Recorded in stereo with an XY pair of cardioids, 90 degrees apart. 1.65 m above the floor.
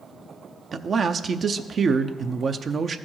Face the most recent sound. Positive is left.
turn(degrees=-50)